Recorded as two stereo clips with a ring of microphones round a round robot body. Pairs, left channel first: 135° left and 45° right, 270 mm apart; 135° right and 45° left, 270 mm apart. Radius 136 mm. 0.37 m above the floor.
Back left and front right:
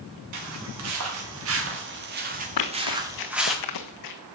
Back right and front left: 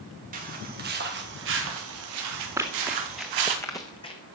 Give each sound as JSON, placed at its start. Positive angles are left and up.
{"t": 0.3, "sound": "footsteps", "azimuth_deg": -15, "distance_m": 5.0}
{"t": 2.6, "sound": "running footsteps", "azimuth_deg": 125, "distance_m": 2.0}